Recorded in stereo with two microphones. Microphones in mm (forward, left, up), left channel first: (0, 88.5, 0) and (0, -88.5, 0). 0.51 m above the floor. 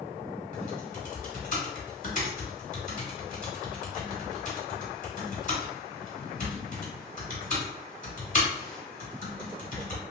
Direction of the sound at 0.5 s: 45° left (ahead or behind).